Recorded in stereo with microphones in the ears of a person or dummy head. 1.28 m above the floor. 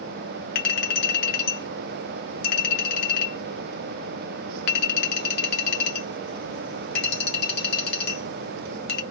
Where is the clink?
55° left (ahead or behind), 0.8 m.